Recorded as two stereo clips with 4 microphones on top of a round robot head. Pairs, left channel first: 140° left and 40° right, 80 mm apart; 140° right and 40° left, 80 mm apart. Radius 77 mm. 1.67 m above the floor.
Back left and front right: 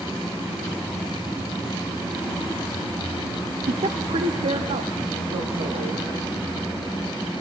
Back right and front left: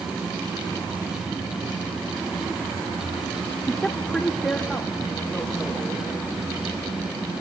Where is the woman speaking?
50° right, 0.5 m; by 6.1 s 55° right, 3.5 m.